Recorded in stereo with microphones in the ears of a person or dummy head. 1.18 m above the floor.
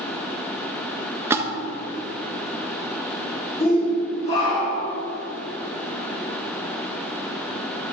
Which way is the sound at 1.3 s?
15° right (ahead or behind).